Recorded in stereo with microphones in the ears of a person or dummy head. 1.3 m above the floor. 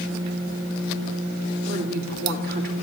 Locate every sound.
1.6 s a woman speaking: 70° right (ahead or behind), 3 m